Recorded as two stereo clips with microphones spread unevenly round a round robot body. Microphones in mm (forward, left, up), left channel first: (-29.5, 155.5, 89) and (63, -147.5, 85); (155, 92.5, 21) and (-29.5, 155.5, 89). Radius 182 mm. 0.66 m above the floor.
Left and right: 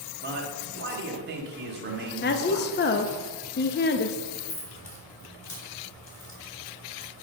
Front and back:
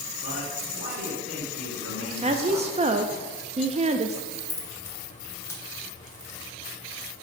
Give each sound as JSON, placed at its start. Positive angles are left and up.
{"t": 0.2, "sound": "a man speaking", "azimuth_deg": -130, "distance_m": 1.6}
{"t": 2.2, "sound": "a woman speaking", "azimuth_deg": 90, "distance_m": 0.6}
{"t": 4.3, "sound": "keys jangling", "azimuth_deg": 55, "distance_m": 2.0}